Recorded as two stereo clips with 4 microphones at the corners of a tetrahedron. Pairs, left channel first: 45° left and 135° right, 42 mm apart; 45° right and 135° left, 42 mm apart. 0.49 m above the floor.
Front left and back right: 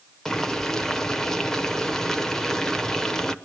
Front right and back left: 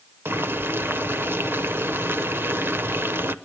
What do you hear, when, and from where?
0.2 s boiling: 120° left, 0.9 m